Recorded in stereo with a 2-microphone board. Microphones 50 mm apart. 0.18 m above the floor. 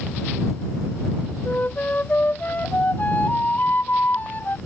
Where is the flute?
40° left (ahead or behind).